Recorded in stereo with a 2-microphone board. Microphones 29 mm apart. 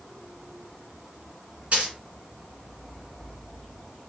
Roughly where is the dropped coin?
Right.